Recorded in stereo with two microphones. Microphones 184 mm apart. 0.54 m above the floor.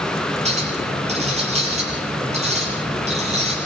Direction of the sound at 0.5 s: 35° right (ahead or behind).